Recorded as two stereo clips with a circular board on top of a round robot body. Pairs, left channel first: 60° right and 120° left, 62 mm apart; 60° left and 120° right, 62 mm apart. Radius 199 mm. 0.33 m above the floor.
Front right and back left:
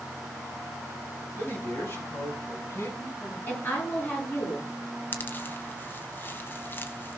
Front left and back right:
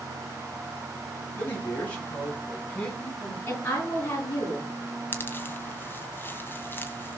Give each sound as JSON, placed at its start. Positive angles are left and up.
{"t": 1.4, "sound": "a man speaking", "azimuth_deg": 0, "distance_m": 6.0}
{"t": 3.5, "sound": "a woman speaking", "azimuth_deg": 0, "distance_m": 9.5}
{"t": 5.1, "sound": "a pop", "azimuth_deg": 0, "distance_m": 0.5}